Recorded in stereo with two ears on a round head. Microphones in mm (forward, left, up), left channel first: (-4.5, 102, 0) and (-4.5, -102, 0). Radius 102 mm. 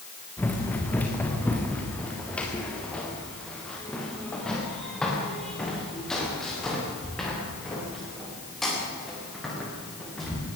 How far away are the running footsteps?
About 4 m.